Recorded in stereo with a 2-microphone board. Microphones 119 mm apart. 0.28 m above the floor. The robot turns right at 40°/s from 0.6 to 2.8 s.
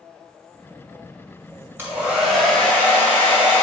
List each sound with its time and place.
1.8 s a hair dryer: 20° right, 1.6 m; by 3.6 s 20° left, 1.6 m